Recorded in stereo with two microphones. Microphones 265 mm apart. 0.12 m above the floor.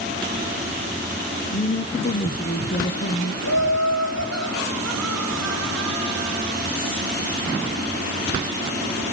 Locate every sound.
1.5 s a woman speaking: 35° left (ahead or behind), 1.2 m
3.4 s laughter: 75° left (ahead or behind), 4.5 m